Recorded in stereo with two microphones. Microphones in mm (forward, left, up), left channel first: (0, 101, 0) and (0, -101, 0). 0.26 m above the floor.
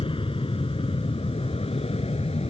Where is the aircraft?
25° left (ahead or behind); by 2.5 s 30° left (ahead or behind).